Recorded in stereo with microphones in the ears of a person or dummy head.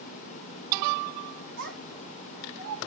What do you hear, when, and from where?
1.6 s a child speaking: 65° right (ahead or behind), 1.9 m; by 2.8 s 60° right (ahead or behind), 2.5 m